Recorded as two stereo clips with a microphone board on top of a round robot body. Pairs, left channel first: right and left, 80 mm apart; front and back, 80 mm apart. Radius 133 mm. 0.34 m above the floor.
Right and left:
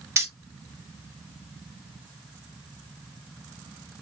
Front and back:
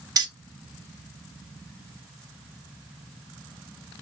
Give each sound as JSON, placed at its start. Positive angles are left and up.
{"t": 0.2, "sound": "keys jangling", "azimuth_deg": 145, "distance_m": 1.3}